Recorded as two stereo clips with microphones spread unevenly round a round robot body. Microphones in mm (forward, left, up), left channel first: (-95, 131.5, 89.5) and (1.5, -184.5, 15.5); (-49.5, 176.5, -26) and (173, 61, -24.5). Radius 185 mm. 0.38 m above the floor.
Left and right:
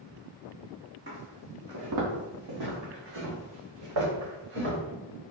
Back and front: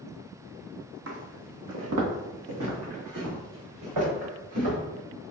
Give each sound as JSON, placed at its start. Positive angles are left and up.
{"t": 1.1, "sound": "footsteps", "azimuth_deg": -5, "distance_m": 0.8}